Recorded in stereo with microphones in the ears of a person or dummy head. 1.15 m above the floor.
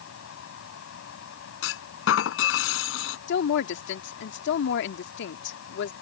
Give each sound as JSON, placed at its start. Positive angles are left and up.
{"t": 0.0, "sound": "a fan", "side_deg": 85}
{"t": 1.6, "sound": "a clunk", "side_deg": 70}
{"t": 3.3, "sound": "a woman speaking", "side_deg": 70}